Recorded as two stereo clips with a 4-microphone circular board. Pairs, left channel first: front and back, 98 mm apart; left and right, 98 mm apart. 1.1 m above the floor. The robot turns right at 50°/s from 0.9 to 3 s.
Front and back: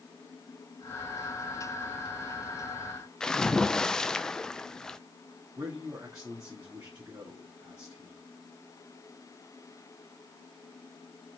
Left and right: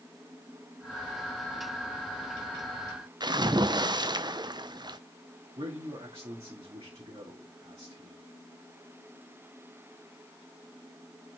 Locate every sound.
3.2 s a splash: 80° right, 0.5 m
5.6 s a man speaking: 120° right, 2 m